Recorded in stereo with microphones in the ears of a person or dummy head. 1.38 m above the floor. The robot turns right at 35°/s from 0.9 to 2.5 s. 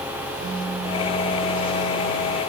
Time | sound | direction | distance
0.4 | a pop | 75° right | 8 m